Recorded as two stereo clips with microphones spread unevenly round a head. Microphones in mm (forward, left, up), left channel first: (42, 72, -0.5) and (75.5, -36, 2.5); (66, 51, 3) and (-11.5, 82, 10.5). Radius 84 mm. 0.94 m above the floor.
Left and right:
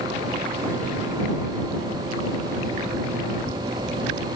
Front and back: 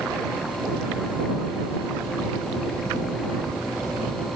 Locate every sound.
Only background noise.